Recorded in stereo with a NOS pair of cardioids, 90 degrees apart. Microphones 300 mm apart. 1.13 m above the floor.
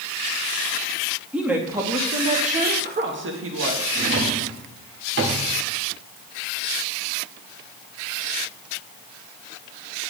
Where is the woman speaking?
5° right, 1.8 m; by 3.9 s 55° right, 1.6 m.